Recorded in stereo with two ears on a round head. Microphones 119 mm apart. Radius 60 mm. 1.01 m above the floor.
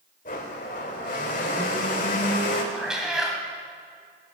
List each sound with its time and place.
0.2 s a blender: 60° left (ahead or behind), 2 m
2.7 s a cat meowing: 5° right (ahead or behind), 2.0 m